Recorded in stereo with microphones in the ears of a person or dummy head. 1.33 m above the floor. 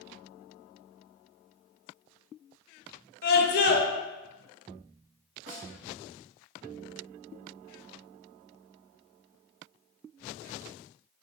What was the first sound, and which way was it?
A scream, 45° left (ahead or behind).